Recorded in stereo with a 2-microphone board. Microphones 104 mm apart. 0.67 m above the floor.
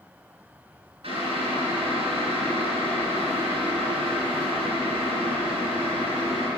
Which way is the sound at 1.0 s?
90° right.